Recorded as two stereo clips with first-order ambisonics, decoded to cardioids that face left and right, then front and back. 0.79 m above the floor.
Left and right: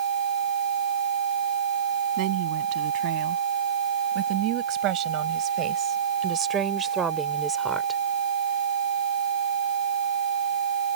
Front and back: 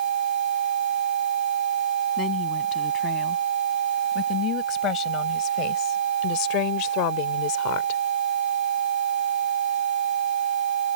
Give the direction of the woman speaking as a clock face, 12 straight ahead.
2 o'clock.